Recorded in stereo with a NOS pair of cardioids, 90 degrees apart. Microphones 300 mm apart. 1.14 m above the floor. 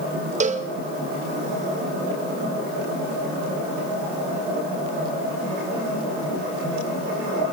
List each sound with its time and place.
0.4 s a cowbell: 25° right, 0.9 m